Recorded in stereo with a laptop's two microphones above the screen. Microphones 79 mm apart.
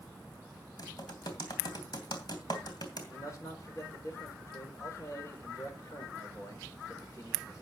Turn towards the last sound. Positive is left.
turn(degrees=40)  # may be behind; listen again after turning